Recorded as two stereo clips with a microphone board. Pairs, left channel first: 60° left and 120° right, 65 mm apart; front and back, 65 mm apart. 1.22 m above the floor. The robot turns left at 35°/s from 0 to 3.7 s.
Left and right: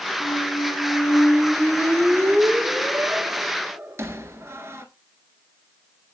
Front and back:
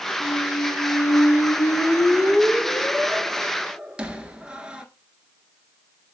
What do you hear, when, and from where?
0.2 s a squeak: 10° left, 1.5 m; by 4.8 s 110° right, 1.5 m